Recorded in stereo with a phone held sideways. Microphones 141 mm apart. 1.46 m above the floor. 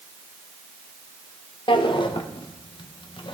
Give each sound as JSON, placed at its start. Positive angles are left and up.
{"t": 1.7, "sound": "a drawer", "side_deg": 35, "distance_m": 0.6}